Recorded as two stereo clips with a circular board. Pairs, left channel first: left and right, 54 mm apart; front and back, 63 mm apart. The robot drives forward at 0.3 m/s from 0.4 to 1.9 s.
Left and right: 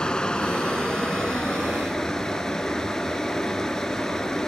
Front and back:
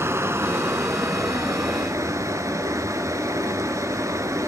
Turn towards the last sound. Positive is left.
turn(degrees=165)